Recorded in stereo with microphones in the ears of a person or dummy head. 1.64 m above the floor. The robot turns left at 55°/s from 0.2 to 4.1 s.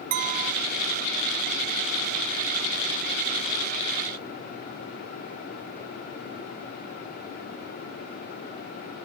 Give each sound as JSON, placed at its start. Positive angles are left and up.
{"t": 0.1, "sound": "a clink", "side_deg": -40, "distance_m": 1.1}